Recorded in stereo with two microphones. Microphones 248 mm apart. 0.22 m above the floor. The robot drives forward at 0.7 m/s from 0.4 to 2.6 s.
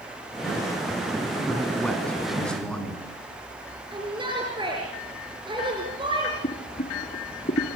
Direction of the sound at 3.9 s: 20° right (ahead or behind).